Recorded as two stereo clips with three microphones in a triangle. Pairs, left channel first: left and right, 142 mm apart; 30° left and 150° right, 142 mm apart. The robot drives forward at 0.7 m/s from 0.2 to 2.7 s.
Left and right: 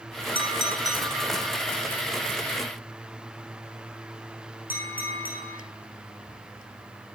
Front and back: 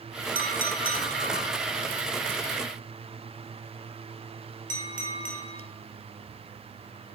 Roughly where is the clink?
Behind right.